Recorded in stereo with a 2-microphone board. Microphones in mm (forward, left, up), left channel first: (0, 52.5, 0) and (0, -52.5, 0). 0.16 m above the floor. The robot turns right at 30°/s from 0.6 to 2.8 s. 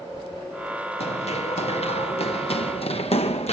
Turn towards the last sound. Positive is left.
turn(degrees=85)